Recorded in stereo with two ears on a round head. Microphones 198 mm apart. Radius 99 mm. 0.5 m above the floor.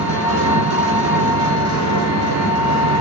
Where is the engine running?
70° right (ahead or behind), 1.3 m.